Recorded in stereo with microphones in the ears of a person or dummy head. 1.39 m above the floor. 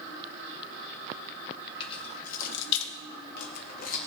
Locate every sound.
1.8 s keys jangling: 30° left (ahead or behind), 1.5 m; by 4.0 s 45° left (ahead or behind), 1.7 m